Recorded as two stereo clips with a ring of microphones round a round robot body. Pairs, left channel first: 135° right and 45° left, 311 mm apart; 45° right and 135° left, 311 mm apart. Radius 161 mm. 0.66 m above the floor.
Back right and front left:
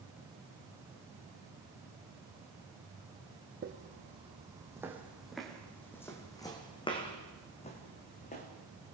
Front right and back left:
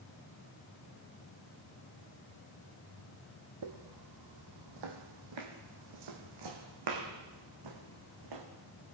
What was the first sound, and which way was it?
Footsteps, 110° left.